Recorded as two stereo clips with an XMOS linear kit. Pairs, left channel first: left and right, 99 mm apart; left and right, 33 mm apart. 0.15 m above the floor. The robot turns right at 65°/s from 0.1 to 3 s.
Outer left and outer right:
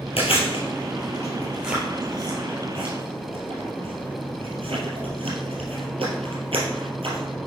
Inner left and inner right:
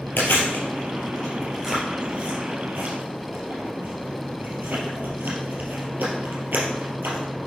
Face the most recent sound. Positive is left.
turn(degrees=-70)  # may be behind; listen again after turning